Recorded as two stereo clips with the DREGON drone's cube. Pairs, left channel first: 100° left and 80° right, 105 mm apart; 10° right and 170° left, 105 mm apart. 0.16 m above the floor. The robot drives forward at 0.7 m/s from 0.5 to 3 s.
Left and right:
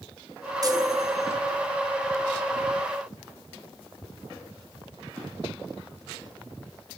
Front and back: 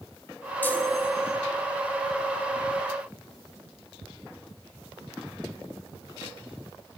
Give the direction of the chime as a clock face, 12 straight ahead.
2 o'clock.